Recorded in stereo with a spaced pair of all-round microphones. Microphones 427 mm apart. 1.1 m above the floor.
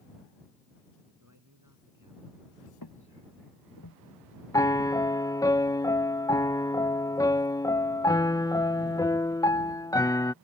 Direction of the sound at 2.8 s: 65° left (ahead or behind).